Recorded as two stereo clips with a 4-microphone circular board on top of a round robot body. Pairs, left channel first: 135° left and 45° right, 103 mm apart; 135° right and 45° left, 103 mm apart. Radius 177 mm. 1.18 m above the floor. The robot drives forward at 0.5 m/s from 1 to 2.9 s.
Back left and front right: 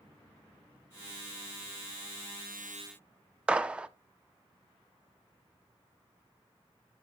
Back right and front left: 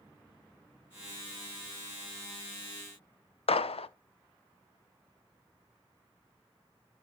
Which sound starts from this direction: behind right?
A gunshot, at 3.5 s.